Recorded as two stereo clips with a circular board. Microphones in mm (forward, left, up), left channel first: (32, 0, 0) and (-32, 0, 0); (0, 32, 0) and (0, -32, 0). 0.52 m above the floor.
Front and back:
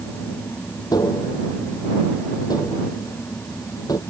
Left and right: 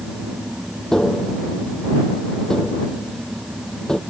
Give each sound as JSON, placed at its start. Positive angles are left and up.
{"t": 0.9, "sound": "tapping", "azimuth_deg": 5}